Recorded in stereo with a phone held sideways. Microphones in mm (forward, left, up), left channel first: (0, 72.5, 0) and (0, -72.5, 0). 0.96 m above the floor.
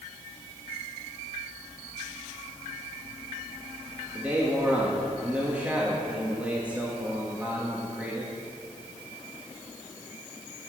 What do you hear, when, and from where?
4.2 s a man speaking: 10° right (ahead or behind), 1.7 m